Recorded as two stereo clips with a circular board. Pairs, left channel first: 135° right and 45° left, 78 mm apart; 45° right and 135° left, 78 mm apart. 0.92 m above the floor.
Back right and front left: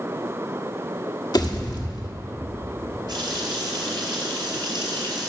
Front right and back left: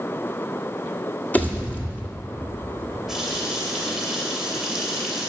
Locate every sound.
1.3 s a pop: 115° right, 1.5 m
3.1 s a running tap: 50° left, 2.5 m